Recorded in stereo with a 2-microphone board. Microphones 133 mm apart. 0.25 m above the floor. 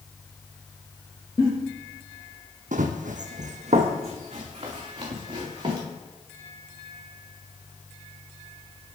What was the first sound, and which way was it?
A giggle, 30° left (ahead or behind).